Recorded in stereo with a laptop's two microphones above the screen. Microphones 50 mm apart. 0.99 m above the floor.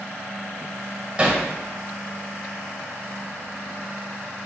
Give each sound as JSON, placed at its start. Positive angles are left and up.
{"t": 1.2, "sound": "hammering", "side_deg": -20, "distance_m": 2.5}